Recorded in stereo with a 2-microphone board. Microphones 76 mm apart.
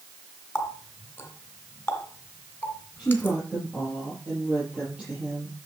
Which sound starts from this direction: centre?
A woman speaking, at 3.0 s.